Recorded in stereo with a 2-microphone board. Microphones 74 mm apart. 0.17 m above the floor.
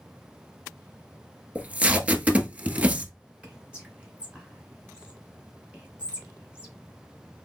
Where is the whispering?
15° right (ahead or behind), 2 m.